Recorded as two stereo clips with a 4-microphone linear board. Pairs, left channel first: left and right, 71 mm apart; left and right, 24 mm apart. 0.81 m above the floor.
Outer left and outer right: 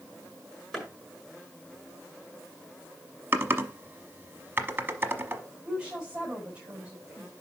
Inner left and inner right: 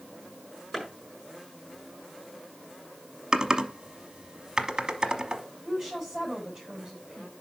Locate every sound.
0.7 s a clap: centre (ahead or behind), 6.5 m
3.3 s typing on a keyboard: 30° right (ahead or behind), 0.9 m
5.7 s a woman speaking: 15° right (ahead or behind), 5 m